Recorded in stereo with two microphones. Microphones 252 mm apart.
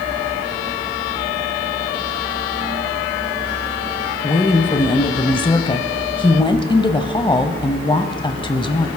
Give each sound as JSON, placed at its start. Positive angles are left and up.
{"t": 4.2, "sound": "a woman speaking", "side_deg": 20, "distance_m": 1.0}